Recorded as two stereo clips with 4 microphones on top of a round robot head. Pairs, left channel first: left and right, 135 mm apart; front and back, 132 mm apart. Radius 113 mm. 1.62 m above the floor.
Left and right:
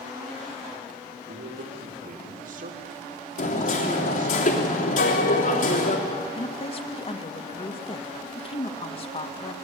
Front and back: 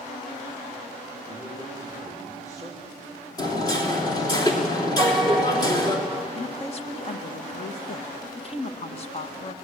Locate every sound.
1.3 s a man speaking: 75° right, 3 m
3.4 s hammering: 60° left, 3 m
5.0 s a piano: 85° left, 2 m
6.3 s a woman speaking: 45° left, 1.8 m